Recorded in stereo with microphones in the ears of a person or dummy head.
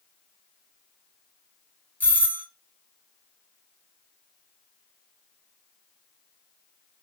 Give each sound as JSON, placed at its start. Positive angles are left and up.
{"t": 2.0, "sound": "a doorbell", "side_deg": 15, "distance_m": 0.9}